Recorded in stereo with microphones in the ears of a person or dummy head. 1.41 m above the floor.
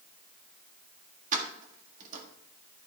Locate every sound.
1.3 s keys jangling: 40° right (ahead or behind), 1.6 m